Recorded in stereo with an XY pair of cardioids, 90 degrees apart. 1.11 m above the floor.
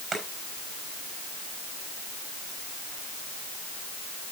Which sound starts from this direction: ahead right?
Chopping, at 0.1 s.